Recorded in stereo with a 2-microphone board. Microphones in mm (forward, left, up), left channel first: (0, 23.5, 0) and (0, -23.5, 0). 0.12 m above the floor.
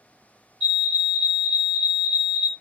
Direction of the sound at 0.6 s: 20° left (ahead or behind).